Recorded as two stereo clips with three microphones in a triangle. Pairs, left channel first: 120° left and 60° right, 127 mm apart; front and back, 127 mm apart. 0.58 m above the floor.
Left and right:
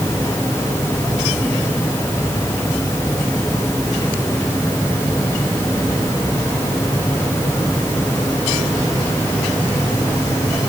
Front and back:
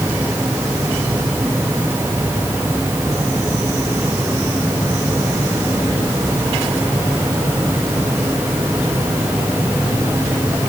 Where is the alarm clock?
No alarm clock in this recording.